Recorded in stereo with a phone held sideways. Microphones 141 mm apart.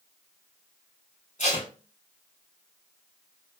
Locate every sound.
1.4 s tape being pulled: 55° left (ahead or behind), 1.6 m